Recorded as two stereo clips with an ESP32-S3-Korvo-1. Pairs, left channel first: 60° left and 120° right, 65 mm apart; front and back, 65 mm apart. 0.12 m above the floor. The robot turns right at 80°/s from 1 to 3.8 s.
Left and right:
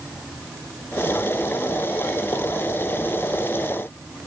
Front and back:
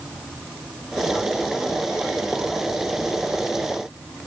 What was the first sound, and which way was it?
Only background noise.